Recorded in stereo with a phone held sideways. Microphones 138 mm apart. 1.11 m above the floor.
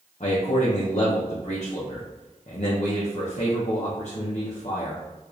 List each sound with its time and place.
0.2 s a man speaking: 55° left (ahead or behind), 0.7 m